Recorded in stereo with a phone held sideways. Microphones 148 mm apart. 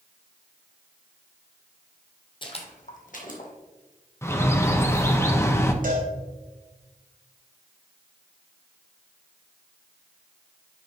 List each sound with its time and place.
2.4 s footsteps: 35° left (ahead or behind), 1.1 m; by 3.5 s 70° left (ahead or behind), 2 m
4.2 s a bird: 20° left (ahead or behind), 0.7 m
5.8 s a cowbell: 70° right (ahead or behind), 1.9 m